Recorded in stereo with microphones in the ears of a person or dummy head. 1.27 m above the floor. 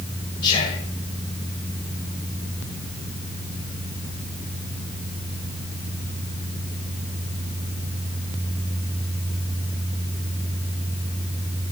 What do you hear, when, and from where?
0.4 s whispering: 40° left (ahead or behind), 1.7 m